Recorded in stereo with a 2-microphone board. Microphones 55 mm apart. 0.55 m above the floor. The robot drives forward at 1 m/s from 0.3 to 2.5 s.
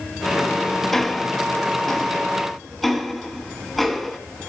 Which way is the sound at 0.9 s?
5° left (ahead or behind).